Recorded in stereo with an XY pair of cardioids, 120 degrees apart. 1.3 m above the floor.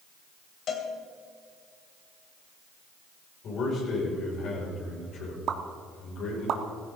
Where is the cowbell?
60° left, 2.5 m.